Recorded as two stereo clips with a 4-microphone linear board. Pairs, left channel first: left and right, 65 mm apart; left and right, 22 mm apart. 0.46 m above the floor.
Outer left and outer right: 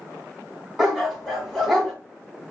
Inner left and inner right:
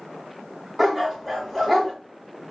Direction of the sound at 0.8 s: Centre (ahead or behind).